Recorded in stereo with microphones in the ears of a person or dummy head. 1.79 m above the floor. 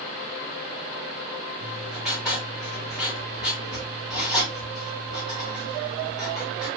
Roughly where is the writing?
Centre.